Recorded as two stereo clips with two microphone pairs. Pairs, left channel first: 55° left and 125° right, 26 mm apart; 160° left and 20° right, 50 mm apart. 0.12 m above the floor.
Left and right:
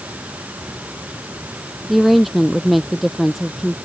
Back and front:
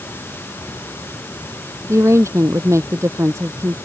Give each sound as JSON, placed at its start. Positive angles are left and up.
{"t": 0.0, "sound": "running water", "azimuth_deg": -155}
{"t": 1.9, "sound": "a woman speaking", "azimuth_deg": -35}